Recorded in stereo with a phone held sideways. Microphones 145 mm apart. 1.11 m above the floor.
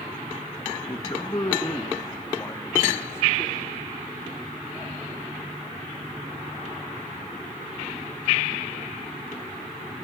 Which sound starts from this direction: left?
A man speaking, at 0.9 s.